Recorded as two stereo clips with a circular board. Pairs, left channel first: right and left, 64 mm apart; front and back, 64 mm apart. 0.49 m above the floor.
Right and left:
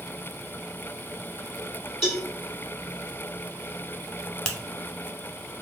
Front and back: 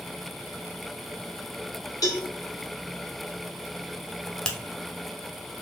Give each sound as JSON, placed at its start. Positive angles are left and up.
{"t": 2.0, "sound": "a cowbell", "azimuth_deg": 5, "distance_m": 1.1}
{"t": 4.5, "sound": "a finger snap", "azimuth_deg": -50, "distance_m": 0.5}